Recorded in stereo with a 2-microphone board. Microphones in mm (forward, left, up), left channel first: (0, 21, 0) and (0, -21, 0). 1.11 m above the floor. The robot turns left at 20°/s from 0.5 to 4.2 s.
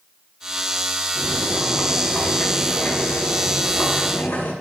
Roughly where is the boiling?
Behind.